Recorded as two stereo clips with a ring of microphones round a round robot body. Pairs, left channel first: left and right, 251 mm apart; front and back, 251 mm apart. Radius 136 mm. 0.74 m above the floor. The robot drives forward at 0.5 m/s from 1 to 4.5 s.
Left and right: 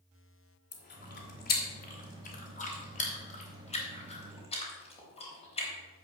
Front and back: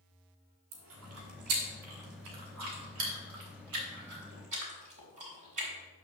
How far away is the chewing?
About 2.5 m.